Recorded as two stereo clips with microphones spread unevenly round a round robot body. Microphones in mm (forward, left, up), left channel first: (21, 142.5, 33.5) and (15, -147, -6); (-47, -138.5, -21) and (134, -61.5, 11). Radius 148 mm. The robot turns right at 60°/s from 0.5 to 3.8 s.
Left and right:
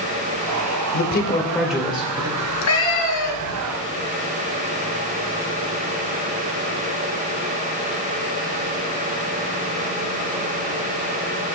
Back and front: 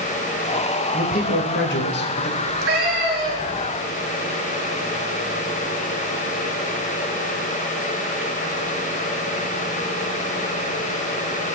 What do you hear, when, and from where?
0.9 s a man speaking: 140° left, 2.5 m; by 2.3 s 140° right, 2.5 m
2.4 s a cat meowing: 40° left, 2.5 m; by 3.6 s 115° left, 2.5 m